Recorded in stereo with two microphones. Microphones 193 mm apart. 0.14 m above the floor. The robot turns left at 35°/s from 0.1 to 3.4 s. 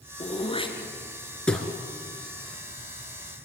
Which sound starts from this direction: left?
Throat clearing, at 0.2 s.